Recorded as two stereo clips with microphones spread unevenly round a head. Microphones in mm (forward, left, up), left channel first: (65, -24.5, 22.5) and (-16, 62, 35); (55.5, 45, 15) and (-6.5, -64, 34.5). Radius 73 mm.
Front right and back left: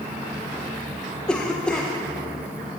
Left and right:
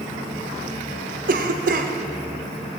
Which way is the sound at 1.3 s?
135° right.